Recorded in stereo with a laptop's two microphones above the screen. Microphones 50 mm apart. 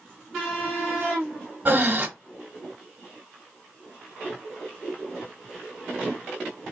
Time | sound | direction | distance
1.6 | breathing | 40° right (ahead or behind) | 1.4 m